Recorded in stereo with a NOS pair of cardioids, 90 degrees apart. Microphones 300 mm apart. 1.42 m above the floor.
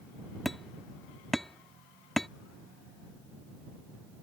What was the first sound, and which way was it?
Hammering, straight ahead.